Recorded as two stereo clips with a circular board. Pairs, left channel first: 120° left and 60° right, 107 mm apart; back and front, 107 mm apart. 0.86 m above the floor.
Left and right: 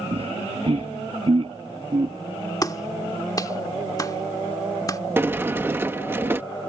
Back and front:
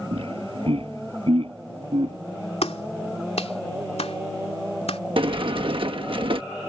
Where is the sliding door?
5° left.